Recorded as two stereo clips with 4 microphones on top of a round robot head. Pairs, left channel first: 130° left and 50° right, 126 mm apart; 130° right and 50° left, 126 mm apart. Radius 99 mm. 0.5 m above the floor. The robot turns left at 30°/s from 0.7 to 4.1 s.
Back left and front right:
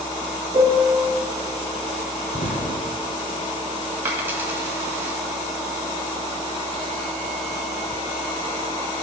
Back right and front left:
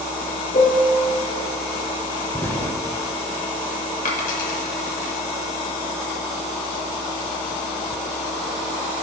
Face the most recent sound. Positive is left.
turn(degrees=-125)